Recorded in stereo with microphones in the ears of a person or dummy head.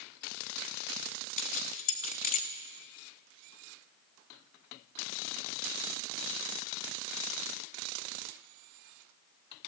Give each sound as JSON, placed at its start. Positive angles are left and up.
{"t": 1.4, "sound": "keys jangling", "side_deg": 45, "distance_m": 1.0}